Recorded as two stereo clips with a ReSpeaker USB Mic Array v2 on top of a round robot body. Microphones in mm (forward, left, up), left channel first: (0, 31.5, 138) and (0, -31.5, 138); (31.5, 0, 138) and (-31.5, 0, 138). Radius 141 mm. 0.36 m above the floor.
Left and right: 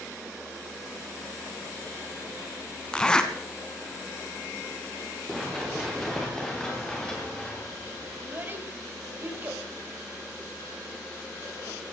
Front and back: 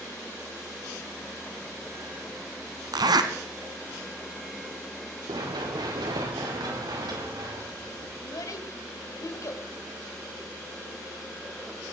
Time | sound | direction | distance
2.9 | a zipper | 170° left | 1.4 m
5.3 | running footsteps | straight behind | 4 m
8.2 | a child speaking | 30° right | 2.5 m